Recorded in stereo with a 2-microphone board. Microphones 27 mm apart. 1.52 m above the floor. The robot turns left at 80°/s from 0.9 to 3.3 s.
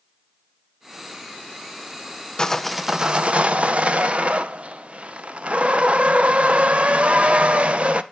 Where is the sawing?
25° left, 0.6 m; by 8.0 s 45° right, 0.6 m.